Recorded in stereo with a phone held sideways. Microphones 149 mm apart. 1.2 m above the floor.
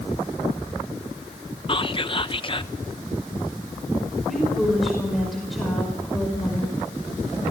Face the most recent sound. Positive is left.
turn(degrees=0)  # may be behind; listen again after turning